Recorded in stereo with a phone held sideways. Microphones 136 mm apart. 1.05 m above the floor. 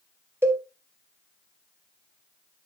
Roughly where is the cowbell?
Centre.